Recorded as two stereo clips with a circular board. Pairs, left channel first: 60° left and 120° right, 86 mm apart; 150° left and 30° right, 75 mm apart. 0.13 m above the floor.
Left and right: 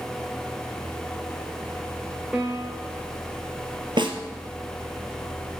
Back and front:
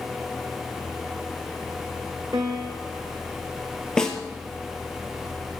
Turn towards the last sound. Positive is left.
turn(degrees=-130)